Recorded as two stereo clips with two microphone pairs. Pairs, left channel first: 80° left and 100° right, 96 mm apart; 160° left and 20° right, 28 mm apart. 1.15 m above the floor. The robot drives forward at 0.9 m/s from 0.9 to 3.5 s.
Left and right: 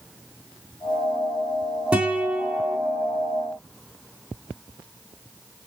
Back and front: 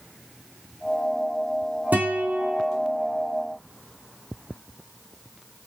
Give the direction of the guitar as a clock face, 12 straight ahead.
1 o'clock.